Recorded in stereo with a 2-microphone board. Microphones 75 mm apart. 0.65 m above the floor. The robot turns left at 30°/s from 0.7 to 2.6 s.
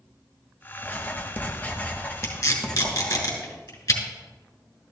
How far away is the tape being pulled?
About 3 m.